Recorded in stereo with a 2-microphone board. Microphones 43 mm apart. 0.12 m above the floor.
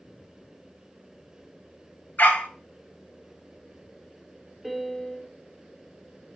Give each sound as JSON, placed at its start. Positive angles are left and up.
{"t": 2.2, "sound": "a dog barking", "side_deg": 50, "distance_m": 0.6}
{"t": 4.6, "sound": "a piano", "side_deg": -5, "distance_m": 0.5}